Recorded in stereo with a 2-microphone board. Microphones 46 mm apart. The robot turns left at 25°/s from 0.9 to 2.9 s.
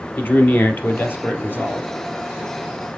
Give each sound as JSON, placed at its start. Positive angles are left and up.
{"t": 0.2, "sound": "a man speaking", "side_deg": 50, "distance_m": 1.8}